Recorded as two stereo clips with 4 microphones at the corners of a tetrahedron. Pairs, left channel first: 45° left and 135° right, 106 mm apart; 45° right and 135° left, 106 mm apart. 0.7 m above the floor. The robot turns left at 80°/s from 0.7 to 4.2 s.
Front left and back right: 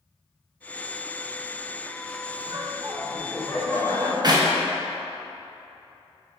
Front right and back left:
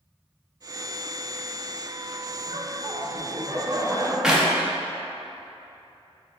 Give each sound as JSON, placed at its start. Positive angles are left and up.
{"t": 2.5, "sound": "laughter", "azimuth_deg": -165, "distance_m": 1.0}
{"t": 4.2, "sound": "a clap", "azimuth_deg": -145, "distance_m": 0.6}